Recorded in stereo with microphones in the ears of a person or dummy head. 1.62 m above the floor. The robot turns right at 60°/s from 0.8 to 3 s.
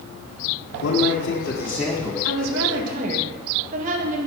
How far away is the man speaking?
About 1.6 m.